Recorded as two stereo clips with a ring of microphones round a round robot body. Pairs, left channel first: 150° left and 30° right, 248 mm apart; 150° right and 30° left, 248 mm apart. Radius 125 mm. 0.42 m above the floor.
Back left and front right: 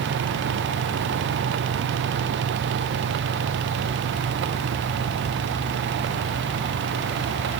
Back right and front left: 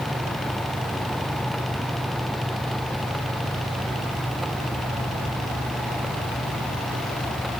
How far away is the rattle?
No rattle in this recording.